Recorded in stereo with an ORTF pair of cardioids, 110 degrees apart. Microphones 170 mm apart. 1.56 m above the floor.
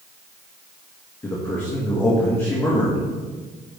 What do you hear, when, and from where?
1.2 s a man speaking: 15° left, 2 m